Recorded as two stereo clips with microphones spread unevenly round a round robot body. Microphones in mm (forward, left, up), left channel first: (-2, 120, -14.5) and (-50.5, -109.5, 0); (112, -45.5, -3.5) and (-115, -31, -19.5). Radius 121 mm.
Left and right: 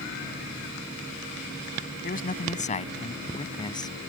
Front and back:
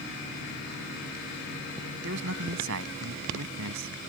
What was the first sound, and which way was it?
A man speaking, 130° left.